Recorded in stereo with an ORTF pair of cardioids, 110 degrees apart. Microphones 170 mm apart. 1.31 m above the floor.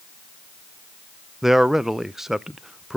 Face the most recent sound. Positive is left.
turn(degrees=0)